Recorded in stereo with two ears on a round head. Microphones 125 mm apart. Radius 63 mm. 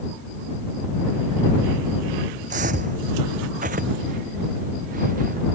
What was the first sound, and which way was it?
Footsteps, 55° right (ahead or behind).